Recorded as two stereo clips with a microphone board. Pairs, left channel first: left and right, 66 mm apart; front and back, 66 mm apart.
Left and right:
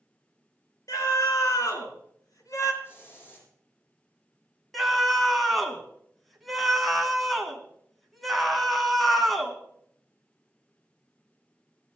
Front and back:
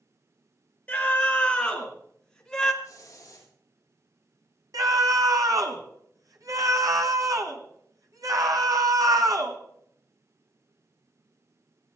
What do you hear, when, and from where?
0.9 s a scream: 70° left, 4.5 m; by 2.7 s 85° left, 3 m
2.8 s a hiss: 35° left, 6.5 m
4.7 s a scream: straight behind, 1.9 m